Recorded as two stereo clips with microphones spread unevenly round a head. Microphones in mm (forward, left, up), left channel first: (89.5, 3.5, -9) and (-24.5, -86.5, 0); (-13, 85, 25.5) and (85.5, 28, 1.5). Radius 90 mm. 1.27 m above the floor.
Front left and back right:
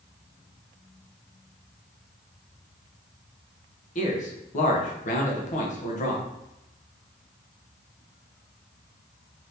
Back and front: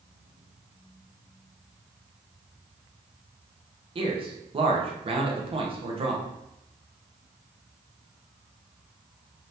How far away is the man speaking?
About 0.9 m.